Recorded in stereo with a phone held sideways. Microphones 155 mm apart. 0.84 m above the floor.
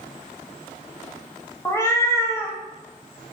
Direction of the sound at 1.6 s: 20° left (ahead or behind).